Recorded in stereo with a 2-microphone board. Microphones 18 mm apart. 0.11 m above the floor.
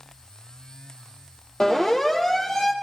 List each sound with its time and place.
1.6 s a siren: 40° left (ahead or behind), 4 m; by 2.7 s 30° left (ahead or behind), 3.5 m